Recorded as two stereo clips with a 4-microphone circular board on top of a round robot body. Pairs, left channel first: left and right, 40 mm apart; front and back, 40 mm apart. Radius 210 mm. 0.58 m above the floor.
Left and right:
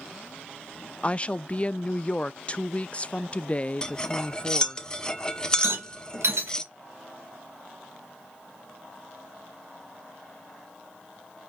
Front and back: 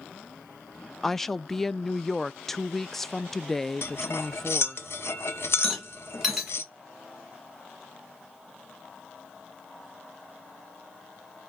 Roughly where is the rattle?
Right.